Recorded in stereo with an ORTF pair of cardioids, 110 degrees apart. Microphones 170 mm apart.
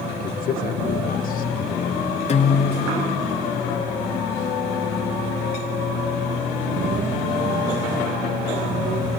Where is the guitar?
40° left, 4 m.